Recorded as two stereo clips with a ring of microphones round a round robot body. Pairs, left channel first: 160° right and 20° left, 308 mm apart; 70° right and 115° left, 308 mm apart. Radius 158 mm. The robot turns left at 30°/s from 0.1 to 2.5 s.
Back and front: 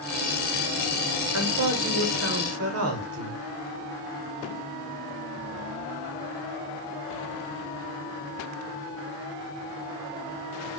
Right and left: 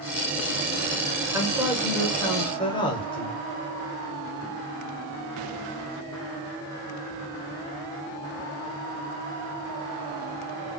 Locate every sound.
1.3 s a woman speaking: 35° left, 1.1 m; by 3.4 s straight ahead, 1.1 m